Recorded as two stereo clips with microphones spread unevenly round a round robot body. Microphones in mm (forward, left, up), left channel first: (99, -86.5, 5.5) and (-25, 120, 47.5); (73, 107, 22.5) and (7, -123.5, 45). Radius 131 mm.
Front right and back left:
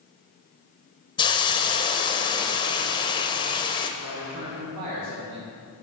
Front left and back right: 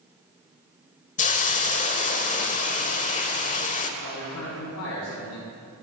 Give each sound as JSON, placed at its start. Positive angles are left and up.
{"t": 1.2, "sound": "a hiss", "azimuth_deg": 15, "distance_m": 0.7}
{"t": 4.0, "sound": "a man speaking", "azimuth_deg": 110, "distance_m": 2.0}